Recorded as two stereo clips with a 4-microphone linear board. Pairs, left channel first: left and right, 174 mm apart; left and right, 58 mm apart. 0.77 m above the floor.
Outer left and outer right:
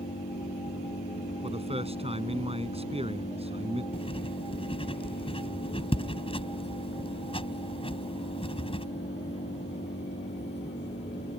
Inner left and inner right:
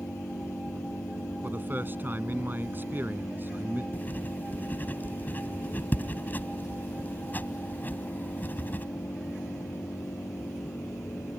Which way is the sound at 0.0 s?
80° left.